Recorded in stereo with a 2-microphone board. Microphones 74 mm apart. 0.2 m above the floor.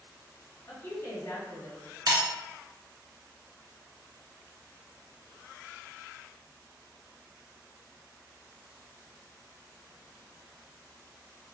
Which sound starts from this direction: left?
A woman speaking, at 0.7 s.